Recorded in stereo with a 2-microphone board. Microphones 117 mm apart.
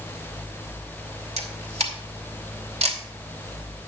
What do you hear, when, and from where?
1.4 s a camera shutter: 65° right (ahead or behind), 2.5 m